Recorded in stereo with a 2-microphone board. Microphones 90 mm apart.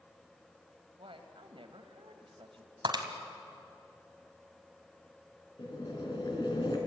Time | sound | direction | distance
1.0 | a woman speaking | 75° right (ahead or behind) | 2.5 m
2.9 | breaking glass | 55° right (ahead or behind) | 2 m
5.6 | boiling | 55° left (ahead or behind) | 3.5 m